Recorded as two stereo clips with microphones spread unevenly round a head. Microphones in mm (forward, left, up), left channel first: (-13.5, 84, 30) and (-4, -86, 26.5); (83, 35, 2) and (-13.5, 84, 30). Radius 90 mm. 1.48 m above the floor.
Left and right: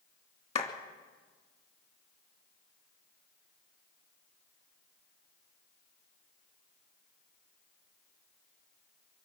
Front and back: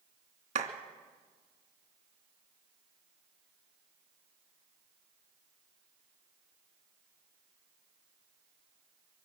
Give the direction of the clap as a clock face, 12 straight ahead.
7 o'clock.